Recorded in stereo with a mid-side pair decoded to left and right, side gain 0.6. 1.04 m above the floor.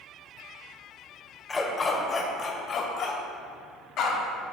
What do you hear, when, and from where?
1.5 s a dog barking: 20° left, 1.9 m; by 4.2 s 65° left, 2.5 m